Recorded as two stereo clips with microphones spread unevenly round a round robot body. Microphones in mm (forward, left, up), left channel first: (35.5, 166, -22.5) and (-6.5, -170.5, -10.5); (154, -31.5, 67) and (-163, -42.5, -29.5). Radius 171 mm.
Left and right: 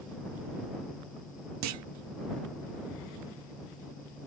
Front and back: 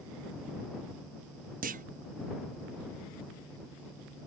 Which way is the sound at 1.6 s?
135° right.